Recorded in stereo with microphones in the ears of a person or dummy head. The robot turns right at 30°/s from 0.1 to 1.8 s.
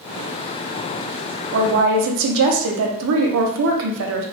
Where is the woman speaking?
65° right (ahead or behind), 0.6 m; by 4.2 s 70° right (ahead or behind), 0.6 m.